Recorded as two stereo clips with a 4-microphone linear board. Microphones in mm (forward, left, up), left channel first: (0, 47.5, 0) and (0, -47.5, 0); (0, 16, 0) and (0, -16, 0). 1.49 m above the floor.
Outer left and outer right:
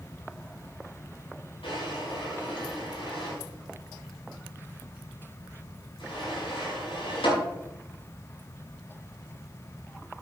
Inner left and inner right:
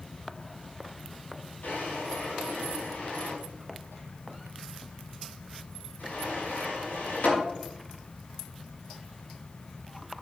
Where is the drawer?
80° left, 5.5 m.